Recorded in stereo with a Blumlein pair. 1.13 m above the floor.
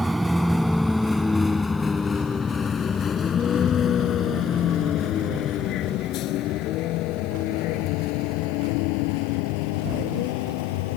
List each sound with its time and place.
0.0 s a vehicle: 5° right; by 11.0 s 50° left